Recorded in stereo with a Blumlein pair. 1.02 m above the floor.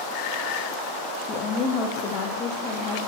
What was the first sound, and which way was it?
A woman speaking, 25° left.